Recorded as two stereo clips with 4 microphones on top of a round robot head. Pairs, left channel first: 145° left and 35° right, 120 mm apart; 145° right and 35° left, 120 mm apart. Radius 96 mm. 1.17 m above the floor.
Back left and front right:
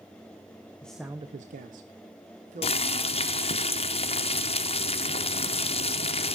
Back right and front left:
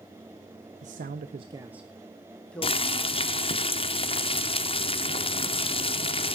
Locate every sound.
0.8 s a man speaking: 60° left, 0.7 m; by 3.2 s 65° right, 2.5 m
2.6 s boiling: 175° left, 0.8 m